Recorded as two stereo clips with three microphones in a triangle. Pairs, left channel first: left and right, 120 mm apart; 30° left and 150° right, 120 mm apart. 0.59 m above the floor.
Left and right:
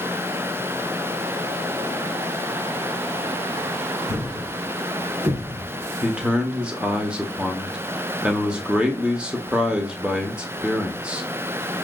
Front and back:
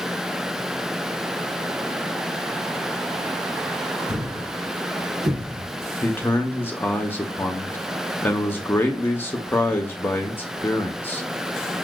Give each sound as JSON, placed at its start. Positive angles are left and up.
{"t": 4.1, "sound": "a thud", "azimuth_deg": -90, "distance_m": 3.0}
{"t": 6.0, "sound": "a man speaking", "azimuth_deg": -20, "distance_m": 0.8}